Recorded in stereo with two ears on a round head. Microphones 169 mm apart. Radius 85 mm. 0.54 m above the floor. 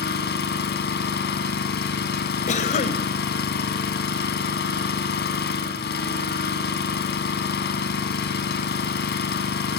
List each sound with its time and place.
0.0 s an engine running: 55° left (ahead or behind), 3.5 m
2.5 s a cough: 40° left (ahead or behind), 2.5 m